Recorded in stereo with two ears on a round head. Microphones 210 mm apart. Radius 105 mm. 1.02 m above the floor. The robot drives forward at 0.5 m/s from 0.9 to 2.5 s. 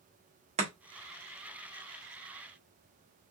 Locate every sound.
0.6 s chopping: 30° right (ahead or behind), 1.4 m